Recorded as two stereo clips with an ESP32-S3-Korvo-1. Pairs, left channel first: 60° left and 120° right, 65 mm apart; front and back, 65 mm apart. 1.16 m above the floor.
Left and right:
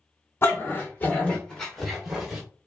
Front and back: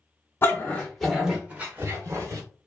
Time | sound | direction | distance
0.4 | a dog barking | 35° left | 1.0 m